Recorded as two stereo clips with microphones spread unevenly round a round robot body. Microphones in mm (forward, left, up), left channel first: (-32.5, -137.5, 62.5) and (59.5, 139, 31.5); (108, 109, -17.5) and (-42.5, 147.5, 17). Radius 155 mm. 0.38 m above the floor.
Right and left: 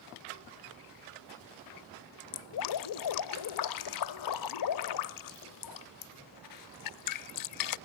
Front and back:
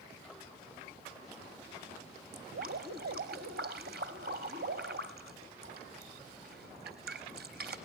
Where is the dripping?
135° right, 0.6 m.